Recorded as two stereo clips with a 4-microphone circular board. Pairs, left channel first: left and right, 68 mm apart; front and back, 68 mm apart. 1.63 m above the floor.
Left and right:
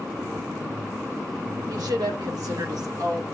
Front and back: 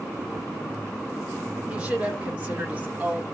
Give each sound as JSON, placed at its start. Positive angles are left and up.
{"t": 1.7, "sound": "a woman speaking", "azimuth_deg": -105, "distance_m": 4.0}